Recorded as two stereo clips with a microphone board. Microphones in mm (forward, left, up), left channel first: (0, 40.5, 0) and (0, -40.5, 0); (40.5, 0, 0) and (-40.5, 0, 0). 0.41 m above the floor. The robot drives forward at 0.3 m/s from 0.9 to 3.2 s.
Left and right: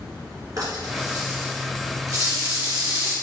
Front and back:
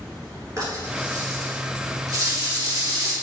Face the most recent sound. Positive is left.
turn(degrees=-140)